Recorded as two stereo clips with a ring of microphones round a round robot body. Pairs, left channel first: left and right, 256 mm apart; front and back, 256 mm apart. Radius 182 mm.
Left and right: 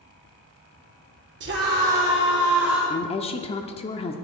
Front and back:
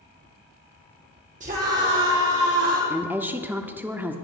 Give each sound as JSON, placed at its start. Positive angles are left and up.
{"t": 1.4, "sound": "a scream", "azimuth_deg": -120, "distance_m": 1.9}
{"t": 2.9, "sound": "a woman speaking", "azimuth_deg": 110, "distance_m": 0.8}